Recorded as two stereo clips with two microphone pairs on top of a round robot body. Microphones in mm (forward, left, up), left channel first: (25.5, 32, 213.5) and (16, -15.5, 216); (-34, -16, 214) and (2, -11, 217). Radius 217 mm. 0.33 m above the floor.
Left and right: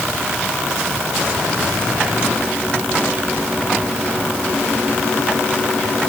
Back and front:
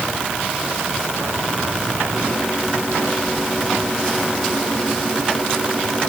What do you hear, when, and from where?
Only background noise.